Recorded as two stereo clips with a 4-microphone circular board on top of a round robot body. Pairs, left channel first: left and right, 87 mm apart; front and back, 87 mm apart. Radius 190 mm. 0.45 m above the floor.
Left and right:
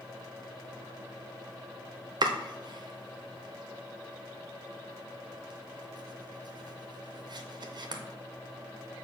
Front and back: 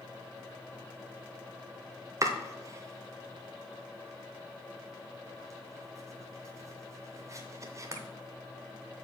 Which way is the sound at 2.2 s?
125° right.